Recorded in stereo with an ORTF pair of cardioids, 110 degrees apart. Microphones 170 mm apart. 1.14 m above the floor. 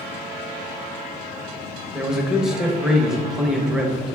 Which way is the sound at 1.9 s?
5° right.